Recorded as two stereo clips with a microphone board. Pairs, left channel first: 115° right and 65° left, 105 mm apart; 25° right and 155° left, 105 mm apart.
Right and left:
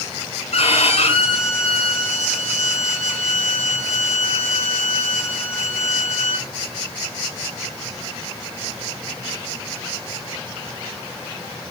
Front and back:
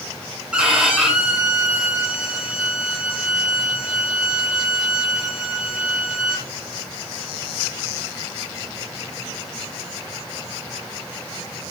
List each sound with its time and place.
0.5 s a violin: 125° right, 7 m